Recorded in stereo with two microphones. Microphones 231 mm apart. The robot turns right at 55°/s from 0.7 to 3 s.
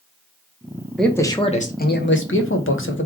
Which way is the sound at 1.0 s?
Straight ahead.